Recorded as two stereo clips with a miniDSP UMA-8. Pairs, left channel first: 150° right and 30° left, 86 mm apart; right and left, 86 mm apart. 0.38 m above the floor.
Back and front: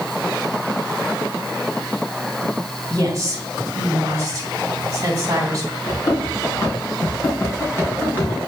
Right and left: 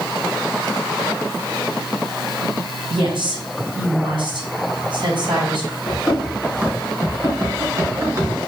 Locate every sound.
2.9 s a woman speaking: 80° left, 2 m
5.9 s running footsteps: 165° left, 4.5 m; by 8.3 s 140° left, 4 m